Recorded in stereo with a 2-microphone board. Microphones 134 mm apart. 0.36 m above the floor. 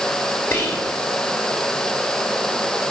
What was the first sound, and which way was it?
Whispering, 20° left (ahead or behind).